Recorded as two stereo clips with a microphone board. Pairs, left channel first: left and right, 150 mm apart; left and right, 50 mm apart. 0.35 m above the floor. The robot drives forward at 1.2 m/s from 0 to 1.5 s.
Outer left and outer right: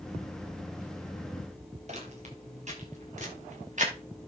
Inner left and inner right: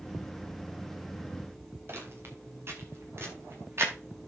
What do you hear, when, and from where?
1.9 s footsteps: 50° right (ahead or behind), 5 m; by 3.9 s 55° right (ahead or behind), 7.5 m